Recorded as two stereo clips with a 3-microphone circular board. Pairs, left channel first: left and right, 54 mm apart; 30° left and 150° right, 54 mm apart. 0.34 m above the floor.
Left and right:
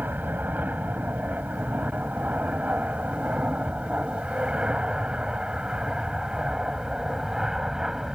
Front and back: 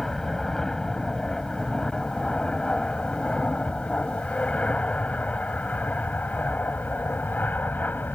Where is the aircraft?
45° right; by 8.2 s 10° right.